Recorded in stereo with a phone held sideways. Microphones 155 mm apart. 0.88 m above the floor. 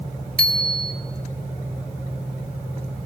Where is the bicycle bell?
70° right (ahead or behind), 2.5 m.